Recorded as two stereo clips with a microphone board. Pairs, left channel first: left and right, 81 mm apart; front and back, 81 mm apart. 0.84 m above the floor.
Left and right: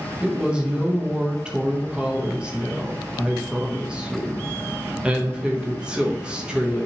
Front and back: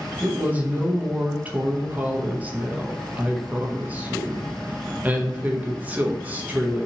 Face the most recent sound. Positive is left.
turn(degrees=-150)